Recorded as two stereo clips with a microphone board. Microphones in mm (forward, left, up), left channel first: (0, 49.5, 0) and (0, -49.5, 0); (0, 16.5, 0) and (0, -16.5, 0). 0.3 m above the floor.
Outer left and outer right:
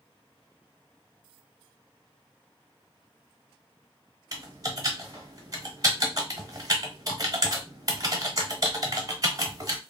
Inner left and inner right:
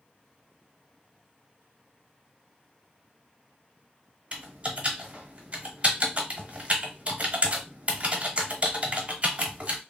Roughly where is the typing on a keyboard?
Right.